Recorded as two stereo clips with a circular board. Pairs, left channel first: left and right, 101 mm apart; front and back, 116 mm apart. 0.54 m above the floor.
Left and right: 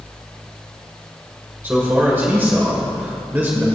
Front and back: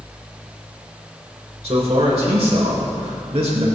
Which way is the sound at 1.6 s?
160° right.